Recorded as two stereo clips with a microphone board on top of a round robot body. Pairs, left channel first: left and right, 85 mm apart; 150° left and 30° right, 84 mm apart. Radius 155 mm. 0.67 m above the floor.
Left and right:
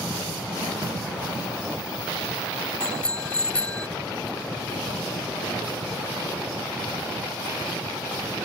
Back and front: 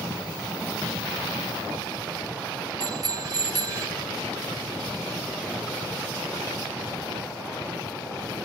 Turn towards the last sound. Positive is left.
turn(degrees=15)